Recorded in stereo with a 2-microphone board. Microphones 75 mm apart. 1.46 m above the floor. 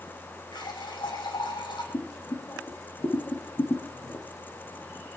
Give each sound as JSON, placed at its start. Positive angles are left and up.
{"t": 0.5, "sound": "a running tap", "side_deg": 85, "distance_m": 7.0}
{"t": 1.9, "sound": "boiling", "side_deg": 40, "distance_m": 2.0}